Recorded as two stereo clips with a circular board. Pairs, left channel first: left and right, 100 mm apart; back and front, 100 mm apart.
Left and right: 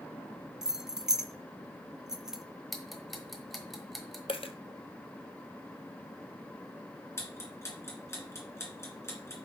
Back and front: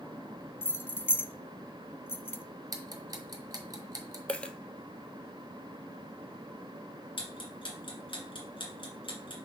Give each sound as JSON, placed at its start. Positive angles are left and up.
{"t": 0.6, "sound": "keys jangling", "azimuth_deg": -165, "distance_m": 0.6}
{"t": 2.7, "sound": "ticking", "azimuth_deg": 0, "distance_m": 1.1}
{"t": 4.3, "sound": "a dropped coin", "azimuth_deg": 105, "distance_m": 0.6}
{"t": 7.2, "sound": "ticking", "azimuth_deg": 150, "distance_m": 2.0}